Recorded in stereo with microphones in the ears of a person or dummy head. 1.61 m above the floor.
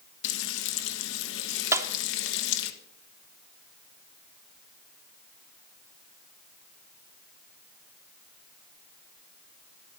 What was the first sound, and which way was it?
Frying, 75° left (ahead or behind).